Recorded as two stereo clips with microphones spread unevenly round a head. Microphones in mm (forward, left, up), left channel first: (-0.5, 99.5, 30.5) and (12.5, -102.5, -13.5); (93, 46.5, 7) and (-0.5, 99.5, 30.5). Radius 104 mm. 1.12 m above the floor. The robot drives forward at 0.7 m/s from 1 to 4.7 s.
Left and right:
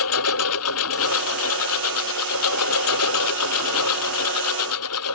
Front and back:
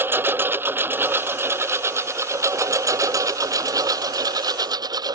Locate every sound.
0.0 s a lawn mower: 80° left; by 5.1 s 100° left